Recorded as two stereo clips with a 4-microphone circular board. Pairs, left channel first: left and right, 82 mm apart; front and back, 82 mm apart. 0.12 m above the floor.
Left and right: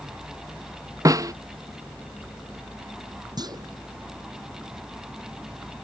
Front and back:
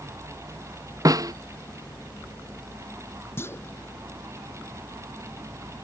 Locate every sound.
1.1 s a snare drum: 135° right
3.4 s a clunk: 60° right